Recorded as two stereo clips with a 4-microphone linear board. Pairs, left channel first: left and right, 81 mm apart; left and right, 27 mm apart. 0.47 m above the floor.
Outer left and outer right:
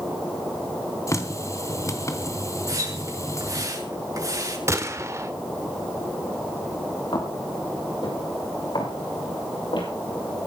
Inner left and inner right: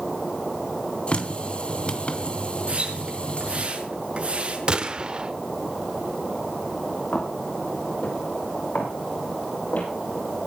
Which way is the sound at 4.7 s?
35° right (ahead or behind).